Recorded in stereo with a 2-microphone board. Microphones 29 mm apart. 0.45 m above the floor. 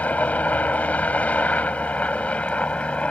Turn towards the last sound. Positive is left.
turn(degrees=45)  # may be behind; listen again after turning